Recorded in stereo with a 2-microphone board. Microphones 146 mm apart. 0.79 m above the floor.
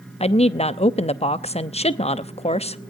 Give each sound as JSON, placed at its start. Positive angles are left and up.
{"t": 0.2, "sound": "a woman speaking", "side_deg": 45, "distance_m": 0.7}